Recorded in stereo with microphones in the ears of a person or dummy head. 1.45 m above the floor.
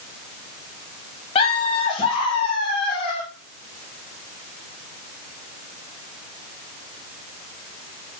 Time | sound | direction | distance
1.4 | laughter | 30° left (ahead or behind) | 0.7 m